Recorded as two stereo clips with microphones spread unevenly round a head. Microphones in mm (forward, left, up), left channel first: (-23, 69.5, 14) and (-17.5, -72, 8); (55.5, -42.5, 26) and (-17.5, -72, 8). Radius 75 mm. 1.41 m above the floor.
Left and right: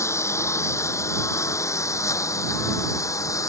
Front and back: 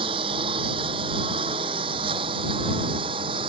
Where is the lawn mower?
165° left; by 3.5 s 160° left.